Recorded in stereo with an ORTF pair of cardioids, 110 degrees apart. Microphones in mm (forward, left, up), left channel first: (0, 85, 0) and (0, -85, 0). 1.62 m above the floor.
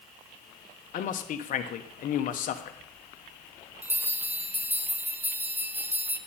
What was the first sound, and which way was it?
A man speaking, 55° left.